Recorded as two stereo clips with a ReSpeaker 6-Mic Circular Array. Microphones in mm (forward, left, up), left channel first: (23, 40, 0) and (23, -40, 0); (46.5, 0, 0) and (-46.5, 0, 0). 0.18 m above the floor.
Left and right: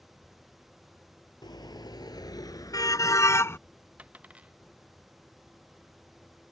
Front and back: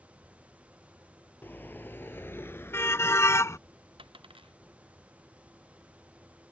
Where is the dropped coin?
165° right.